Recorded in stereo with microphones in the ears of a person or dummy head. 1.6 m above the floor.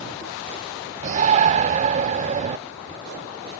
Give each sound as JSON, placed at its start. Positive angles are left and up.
{"t": 1.0, "sound": "a shout", "side_deg": -40}